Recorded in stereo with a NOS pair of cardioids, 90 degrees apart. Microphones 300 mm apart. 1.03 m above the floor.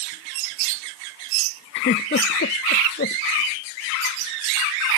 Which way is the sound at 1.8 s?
35° left.